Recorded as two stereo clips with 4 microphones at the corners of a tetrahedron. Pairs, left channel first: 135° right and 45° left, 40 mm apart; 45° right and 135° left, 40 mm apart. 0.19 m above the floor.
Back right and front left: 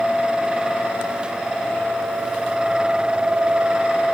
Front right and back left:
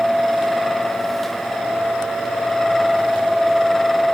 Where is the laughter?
No laughter in this recording.